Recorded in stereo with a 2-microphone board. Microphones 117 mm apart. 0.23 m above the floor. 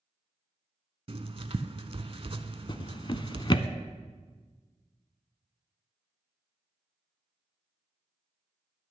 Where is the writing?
50° right (ahead or behind), 0.6 m.